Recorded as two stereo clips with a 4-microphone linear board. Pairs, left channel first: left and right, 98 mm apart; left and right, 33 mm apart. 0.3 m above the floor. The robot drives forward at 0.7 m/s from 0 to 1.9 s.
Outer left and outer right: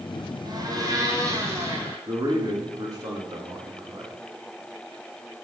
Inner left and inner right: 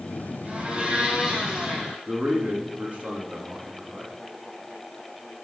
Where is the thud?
I don't hear a thud.